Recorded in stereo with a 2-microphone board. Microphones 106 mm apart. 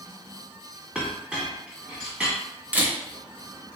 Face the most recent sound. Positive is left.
turn(degrees=-15)  # may be behind; listen again after turning